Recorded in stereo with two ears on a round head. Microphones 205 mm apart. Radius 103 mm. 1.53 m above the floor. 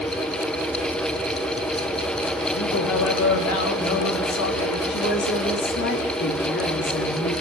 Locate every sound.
2.5 s a man speaking: 70° left (ahead or behind), 3.5 m
4.9 s a woman speaking: 50° left (ahead or behind), 4 m